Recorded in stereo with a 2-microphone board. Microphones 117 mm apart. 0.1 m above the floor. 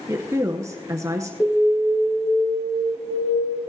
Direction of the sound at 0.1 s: 25° right (ahead or behind).